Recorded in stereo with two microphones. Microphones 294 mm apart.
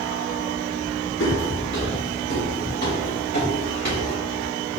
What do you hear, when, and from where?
1.2 s footsteps: 45° left (ahead or behind), 1.8 m; by 4.1 s 30° left (ahead or behind), 3 m